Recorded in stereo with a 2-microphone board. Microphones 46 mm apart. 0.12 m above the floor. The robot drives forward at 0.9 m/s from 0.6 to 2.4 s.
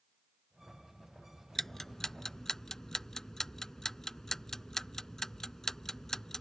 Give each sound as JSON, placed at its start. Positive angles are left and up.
{"t": 1.6, "sound": "ticking", "side_deg": 5}